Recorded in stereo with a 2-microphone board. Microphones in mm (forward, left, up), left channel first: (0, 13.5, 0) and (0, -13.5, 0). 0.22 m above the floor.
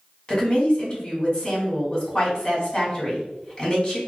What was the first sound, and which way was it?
A woman speaking, 25° left (ahead or behind).